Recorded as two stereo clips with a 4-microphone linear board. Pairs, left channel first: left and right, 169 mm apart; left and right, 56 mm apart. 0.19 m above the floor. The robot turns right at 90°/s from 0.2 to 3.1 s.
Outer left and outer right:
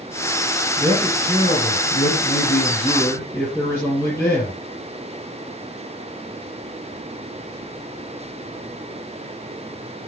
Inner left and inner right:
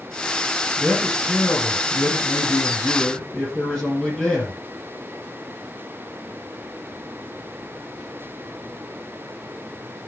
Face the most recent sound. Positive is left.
turn(degrees=165)